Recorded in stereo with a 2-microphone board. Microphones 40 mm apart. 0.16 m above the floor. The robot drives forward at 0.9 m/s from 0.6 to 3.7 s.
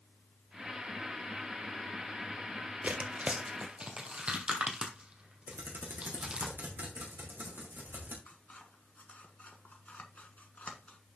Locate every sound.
2.8 s tearing paper: 45° right (ahead or behind), 1.2 m; by 6.5 s 30° right (ahead or behind), 1.8 m
5.5 s typing on a keyboard: 70° right (ahead or behind), 2.5 m
8.3 s scissors: 45° left (ahead or behind), 1.3 m